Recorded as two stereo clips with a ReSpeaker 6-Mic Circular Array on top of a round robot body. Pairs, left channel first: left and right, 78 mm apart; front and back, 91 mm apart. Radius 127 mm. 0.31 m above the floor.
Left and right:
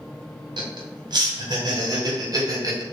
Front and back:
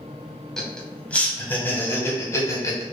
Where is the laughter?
85° right, 3 m; by 2.8 s 50° right, 3.5 m.